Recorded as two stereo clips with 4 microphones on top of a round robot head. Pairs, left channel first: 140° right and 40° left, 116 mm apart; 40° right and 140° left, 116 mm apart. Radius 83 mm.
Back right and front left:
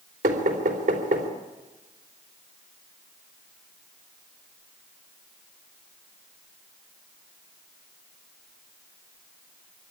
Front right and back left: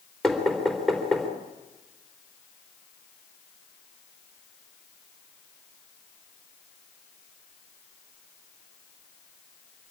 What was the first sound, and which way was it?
Knocking, 50° left.